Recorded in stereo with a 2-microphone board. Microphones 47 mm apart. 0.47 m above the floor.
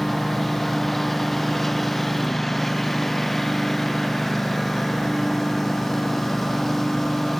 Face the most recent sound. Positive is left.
turn(degrees=5)  # may be behind; listen again after turning